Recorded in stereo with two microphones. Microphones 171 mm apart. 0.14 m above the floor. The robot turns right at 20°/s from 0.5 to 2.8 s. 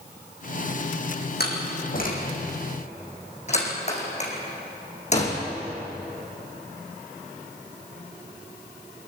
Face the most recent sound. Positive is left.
turn(degrees=40)  # may be behind; listen again after turning